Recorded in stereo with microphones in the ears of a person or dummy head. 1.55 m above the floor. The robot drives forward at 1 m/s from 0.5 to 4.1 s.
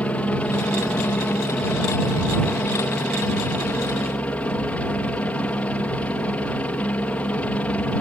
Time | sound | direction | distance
0.0 | a helicopter | 5° left (ahead or behind) | ?